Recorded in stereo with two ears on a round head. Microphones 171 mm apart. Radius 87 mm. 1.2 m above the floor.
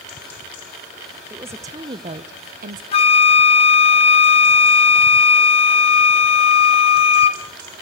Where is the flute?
35° left (ahead or behind), 1.1 m.